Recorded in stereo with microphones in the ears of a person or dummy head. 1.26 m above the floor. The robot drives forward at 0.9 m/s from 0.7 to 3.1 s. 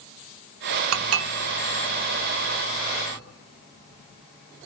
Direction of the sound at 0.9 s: 75° right (ahead or behind).